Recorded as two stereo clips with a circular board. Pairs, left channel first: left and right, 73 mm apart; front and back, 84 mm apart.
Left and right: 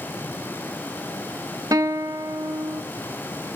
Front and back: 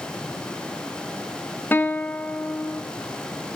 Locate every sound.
1.7 s a guitar: 65° right, 1.7 m